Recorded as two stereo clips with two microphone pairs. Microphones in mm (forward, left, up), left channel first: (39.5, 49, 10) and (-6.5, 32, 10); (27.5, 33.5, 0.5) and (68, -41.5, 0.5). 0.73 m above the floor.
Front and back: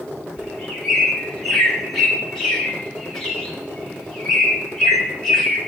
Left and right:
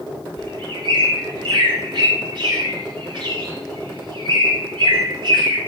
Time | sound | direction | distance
0.4 | a bird | 60° right | 1.7 m